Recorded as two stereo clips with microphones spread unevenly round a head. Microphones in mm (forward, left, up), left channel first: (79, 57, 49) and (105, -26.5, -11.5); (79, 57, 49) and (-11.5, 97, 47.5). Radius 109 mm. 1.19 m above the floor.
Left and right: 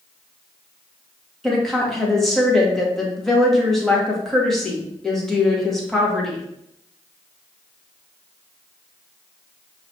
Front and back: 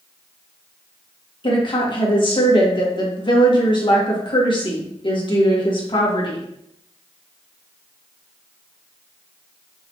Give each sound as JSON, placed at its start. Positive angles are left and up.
{"t": 1.4, "sound": "a woman speaking", "azimuth_deg": 10, "distance_m": 1.9}